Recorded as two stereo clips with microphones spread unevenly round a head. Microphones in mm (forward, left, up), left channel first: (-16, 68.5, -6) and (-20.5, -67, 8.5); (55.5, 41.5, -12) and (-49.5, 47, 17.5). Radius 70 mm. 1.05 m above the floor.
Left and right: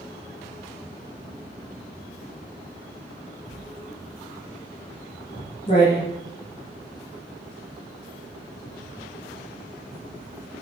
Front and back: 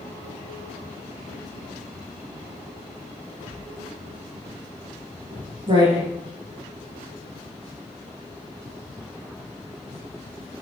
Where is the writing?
140° left, 10 m.